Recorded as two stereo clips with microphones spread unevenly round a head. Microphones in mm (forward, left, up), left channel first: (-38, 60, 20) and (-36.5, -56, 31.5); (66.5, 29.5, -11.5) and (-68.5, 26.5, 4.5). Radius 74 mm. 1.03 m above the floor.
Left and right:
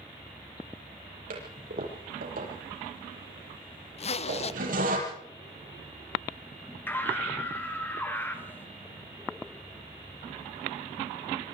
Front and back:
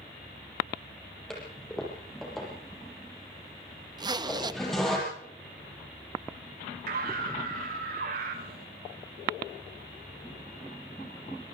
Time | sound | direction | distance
1.3 | a toilet flushing | 90° right | 7 m
4.0 | a zipper | 120° left | 1.0 m
6.9 | a scream | 165° left | 5 m